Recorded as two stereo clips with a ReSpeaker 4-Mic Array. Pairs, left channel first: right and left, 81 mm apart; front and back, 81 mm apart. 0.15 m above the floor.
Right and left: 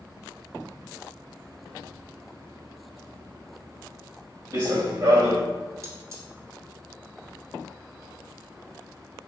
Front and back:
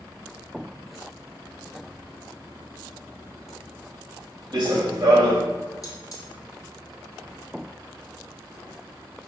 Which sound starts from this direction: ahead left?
Cutlery clinking, at 5.8 s.